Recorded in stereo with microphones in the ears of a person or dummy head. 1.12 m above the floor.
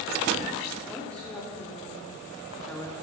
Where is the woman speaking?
Centre (ahead or behind), 3.5 m; by 2.9 s 5° left (ahead or behind), 1.7 m.